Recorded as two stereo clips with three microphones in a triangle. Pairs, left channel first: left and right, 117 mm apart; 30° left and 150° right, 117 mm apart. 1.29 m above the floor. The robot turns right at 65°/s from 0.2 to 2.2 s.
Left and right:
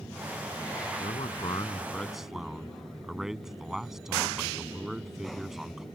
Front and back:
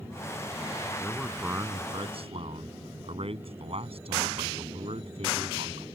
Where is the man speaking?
105° left; by 5.8 s 175° right.